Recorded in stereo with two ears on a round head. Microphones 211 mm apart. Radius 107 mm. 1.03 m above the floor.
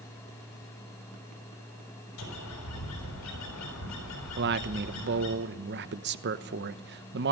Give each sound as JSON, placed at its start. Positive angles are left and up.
{"t": 2.2, "sound": "a bird", "side_deg": 85, "distance_m": 5.5}
{"t": 4.4, "sound": "a man speaking", "side_deg": -50, "distance_m": 1.0}